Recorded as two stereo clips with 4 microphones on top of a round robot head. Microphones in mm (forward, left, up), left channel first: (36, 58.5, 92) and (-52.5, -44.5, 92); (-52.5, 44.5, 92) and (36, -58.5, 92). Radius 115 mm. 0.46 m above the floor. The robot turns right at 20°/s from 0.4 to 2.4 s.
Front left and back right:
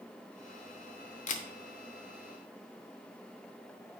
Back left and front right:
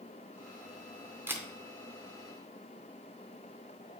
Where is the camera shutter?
25° left, 0.6 m; by 1.5 s 30° left, 0.6 m.